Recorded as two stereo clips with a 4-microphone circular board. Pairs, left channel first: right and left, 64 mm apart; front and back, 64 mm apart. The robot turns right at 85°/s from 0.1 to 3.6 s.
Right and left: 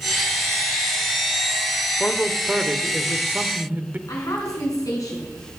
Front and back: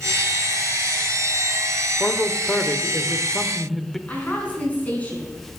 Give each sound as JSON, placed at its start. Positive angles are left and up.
{"t": 2.0, "sound": "a man speaking", "azimuth_deg": -50, "distance_m": 0.8}
{"t": 4.1, "sound": "a woman speaking", "azimuth_deg": -65, "distance_m": 4.5}